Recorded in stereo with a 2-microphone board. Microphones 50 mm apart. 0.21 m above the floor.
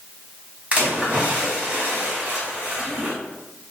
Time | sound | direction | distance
0.7 | a splash | 30° right (ahead or behind) | 1.3 m